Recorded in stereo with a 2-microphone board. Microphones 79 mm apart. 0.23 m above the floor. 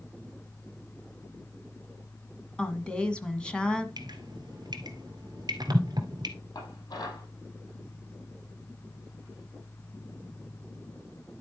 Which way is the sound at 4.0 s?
60° right (ahead or behind).